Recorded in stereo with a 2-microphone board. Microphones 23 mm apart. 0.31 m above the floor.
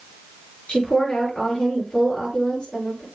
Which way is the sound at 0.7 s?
40° left (ahead or behind).